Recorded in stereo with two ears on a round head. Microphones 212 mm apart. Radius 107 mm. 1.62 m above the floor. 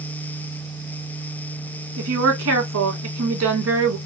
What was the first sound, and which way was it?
A woman speaking, 60° right (ahead or behind).